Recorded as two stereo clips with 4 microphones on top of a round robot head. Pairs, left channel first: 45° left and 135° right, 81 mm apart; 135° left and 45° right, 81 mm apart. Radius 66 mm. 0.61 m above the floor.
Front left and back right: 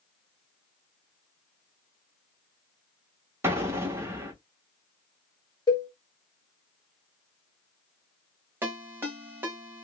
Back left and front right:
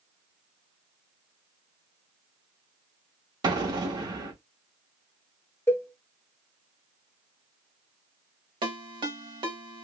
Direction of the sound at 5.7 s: 75° left.